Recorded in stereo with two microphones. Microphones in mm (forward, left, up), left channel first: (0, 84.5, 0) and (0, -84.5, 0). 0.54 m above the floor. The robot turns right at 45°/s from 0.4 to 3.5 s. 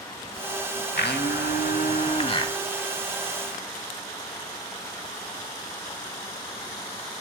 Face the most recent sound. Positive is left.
turn(degrees=-165)